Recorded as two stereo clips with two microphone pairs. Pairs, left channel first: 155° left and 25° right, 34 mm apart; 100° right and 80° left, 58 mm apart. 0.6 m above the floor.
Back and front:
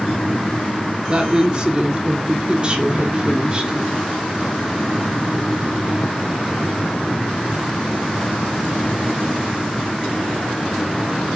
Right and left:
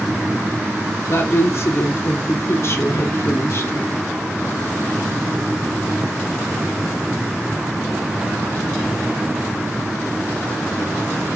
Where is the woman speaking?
80° right, 1.4 m.